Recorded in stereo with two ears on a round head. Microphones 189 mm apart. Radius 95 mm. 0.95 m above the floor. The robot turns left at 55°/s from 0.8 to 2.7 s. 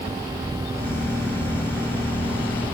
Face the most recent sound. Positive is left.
No sound to turn to.